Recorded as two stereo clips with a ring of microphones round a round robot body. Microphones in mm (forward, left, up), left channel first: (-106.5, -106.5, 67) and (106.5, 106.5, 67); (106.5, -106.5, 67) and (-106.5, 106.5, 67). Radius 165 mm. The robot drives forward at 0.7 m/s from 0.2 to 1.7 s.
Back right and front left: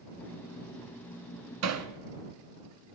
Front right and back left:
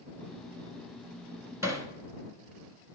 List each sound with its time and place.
1.6 s hammering: 55° left, 1.2 m; by 1.9 s 60° left, 1.2 m